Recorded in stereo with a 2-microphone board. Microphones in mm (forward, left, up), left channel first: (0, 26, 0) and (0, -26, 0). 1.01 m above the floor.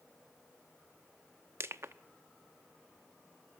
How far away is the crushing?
About 0.8 m.